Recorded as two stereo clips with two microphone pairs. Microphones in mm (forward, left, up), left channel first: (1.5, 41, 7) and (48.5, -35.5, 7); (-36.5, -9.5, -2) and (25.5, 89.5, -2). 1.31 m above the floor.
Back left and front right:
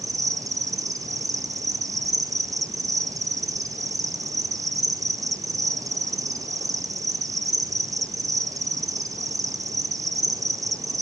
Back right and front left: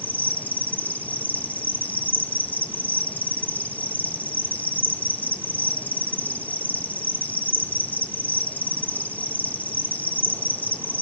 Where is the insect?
50° right, 1.0 m.